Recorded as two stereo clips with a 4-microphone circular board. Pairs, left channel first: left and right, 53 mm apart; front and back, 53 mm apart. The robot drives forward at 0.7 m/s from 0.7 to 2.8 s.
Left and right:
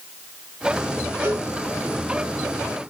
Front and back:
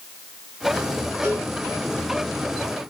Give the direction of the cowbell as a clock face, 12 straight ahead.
4 o'clock.